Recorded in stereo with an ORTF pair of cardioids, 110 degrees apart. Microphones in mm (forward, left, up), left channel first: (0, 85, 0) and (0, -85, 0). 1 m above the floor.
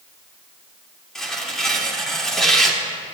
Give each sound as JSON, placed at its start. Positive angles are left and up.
{"t": 1.1, "sound": "tearing paper", "azimuth_deg": 5, "distance_m": 3.0}